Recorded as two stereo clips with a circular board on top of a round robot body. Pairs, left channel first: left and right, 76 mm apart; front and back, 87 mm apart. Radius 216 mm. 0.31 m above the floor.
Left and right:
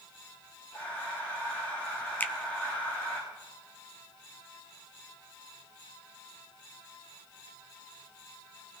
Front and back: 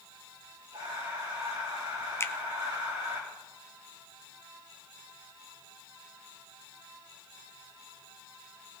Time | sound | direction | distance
0.7 | breathing | 160° left | 6 m
2.2 | a finger snap | 35° left | 1.1 m